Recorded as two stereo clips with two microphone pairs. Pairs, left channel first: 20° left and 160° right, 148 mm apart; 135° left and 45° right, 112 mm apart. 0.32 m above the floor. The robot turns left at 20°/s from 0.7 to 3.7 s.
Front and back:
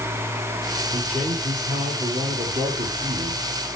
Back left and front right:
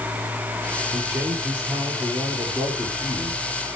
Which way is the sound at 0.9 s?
110° right.